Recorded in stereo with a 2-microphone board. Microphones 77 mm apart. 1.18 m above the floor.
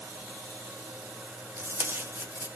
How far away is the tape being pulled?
About 0.7 m.